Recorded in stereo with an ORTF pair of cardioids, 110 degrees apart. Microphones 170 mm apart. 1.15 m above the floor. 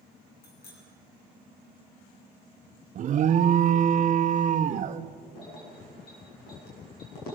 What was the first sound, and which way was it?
A bicycle bell, 65° left.